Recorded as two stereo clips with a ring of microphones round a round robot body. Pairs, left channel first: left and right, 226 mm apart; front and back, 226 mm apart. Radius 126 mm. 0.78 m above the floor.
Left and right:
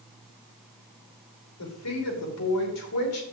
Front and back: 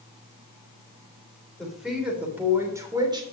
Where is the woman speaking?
90° left, 3 m; by 3.2 s 110° left, 2.5 m.